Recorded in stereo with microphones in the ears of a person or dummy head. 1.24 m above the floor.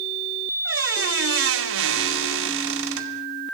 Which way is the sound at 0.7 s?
80° right.